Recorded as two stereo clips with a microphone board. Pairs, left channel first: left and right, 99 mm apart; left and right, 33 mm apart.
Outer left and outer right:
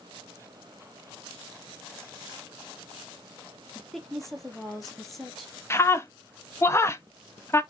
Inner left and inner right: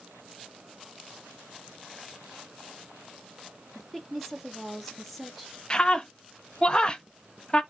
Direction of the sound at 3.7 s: Centre (ahead or behind).